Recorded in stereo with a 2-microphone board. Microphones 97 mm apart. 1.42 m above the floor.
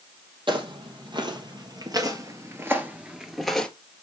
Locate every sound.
0.5 s footsteps: 55° right (ahead or behind), 2.5 m; by 3.7 s 5° left (ahead or behind), 1.5 m